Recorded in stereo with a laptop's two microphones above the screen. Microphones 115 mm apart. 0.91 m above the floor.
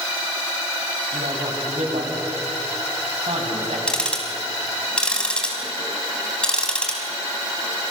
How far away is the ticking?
About 6 m.